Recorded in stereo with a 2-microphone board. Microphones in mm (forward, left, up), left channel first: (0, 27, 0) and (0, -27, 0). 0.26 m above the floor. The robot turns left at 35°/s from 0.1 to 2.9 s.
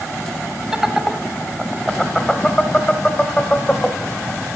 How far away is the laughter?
About 1.0 m.